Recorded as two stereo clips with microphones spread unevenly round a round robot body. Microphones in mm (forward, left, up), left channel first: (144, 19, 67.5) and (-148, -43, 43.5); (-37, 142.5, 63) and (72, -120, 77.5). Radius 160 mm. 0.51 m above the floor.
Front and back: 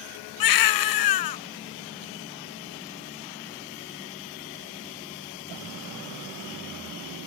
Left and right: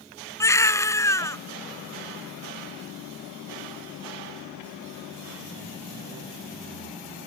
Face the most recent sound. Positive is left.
turn(degrees=30)